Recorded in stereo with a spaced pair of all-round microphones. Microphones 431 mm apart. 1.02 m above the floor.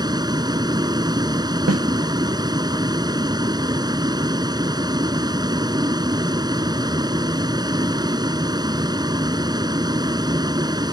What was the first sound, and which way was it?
A vehicle, 10° right (ahead or behind).